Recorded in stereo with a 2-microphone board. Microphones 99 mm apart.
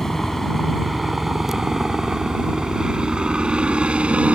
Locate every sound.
0.0 s a helicopter: centre (ahead or behind); by 4.4 s 15° right (ahead or behind)